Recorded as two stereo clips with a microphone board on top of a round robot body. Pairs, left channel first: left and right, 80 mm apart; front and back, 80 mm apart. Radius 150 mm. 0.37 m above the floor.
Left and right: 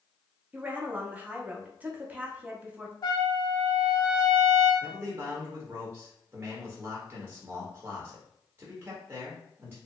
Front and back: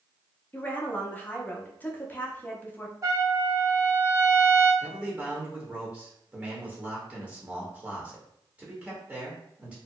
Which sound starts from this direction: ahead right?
A woman speaking, at 0.5 s.